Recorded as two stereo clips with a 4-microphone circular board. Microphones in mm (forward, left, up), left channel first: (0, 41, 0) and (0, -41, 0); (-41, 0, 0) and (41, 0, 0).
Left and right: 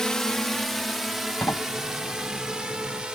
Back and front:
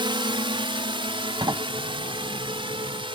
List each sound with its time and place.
0.0 s a drone: 5° left; by 3.2 s 10° right
1.4 s a sliding door: 30° left